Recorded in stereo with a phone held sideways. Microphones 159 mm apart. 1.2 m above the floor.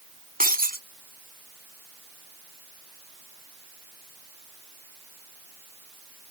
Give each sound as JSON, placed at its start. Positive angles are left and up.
{"t": 0.4, "sound": "breaking glass", "side_deg": -65}